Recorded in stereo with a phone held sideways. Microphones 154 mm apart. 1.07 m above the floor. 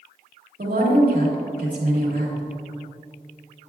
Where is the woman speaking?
85° right, 2.5 m.